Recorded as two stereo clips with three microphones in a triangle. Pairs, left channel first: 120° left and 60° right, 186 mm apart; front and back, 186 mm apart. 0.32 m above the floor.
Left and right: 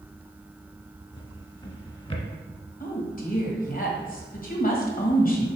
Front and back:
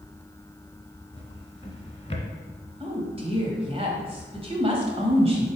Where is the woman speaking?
130° left, 1.4 m.